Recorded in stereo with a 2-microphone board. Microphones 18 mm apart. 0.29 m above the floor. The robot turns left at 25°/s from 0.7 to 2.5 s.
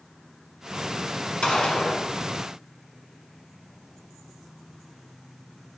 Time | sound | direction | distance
1.4 | a gunshot | 60° left (ahead or behind) | 1.6 m